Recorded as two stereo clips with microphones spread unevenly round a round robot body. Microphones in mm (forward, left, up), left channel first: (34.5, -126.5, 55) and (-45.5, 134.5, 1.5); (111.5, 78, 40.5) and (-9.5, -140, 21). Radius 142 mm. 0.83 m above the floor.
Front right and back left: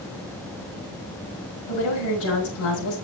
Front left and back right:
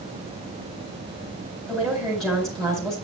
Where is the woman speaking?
40° right, 3.5 m.